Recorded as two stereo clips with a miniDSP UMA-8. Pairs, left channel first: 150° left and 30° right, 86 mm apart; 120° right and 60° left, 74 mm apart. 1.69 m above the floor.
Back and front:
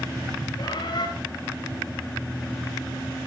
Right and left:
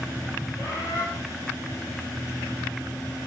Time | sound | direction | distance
0.6 | a bird | 170° right | 9 m